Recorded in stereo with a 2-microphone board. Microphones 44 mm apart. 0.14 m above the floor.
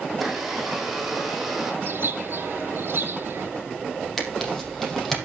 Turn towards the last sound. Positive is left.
turn(degrees=5)  # may be behind; listen again after turning